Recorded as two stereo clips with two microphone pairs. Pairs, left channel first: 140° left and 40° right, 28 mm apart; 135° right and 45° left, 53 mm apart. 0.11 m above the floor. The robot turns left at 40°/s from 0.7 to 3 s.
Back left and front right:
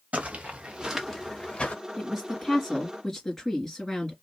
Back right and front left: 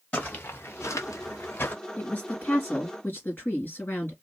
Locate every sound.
0.1 s footsteps: 75° right, 1.5 m; by 1.7 s 175° left, 1.2 m
2.0 s a woman speaking: 115° right, 2 m; by 4.1 s 160° right, 2 m